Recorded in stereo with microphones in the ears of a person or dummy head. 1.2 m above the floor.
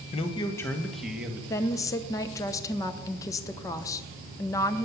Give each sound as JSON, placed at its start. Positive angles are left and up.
{"t": 0.1, "sound": "a man speaking", "side_deg": 35, "distance_m": 1.0}
{"t": 1.5, "sound": "a woman speaking", "side_deg": 20, "distance_m": 0.7}